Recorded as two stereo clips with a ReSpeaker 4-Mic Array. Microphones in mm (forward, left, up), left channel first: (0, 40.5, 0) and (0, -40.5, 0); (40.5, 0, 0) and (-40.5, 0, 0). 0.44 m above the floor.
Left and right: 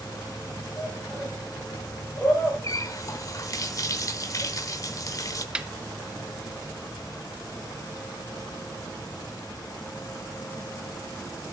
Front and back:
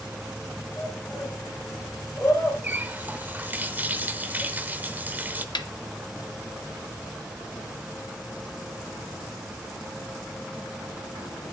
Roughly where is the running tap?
Behind left.